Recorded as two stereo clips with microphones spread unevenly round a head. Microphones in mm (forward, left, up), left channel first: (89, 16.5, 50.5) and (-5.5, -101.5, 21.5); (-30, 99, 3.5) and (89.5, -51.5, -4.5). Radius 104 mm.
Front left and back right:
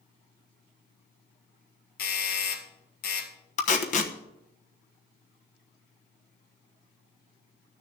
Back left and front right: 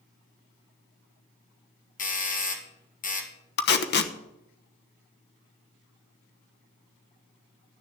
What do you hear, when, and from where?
2.0 s a doorbell: 85° left, 2 m
3.6 s tape being pulled: 100° left, 1.1 m